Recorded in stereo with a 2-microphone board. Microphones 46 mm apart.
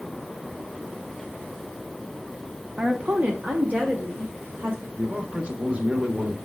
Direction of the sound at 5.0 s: 30° right (ahead or behind).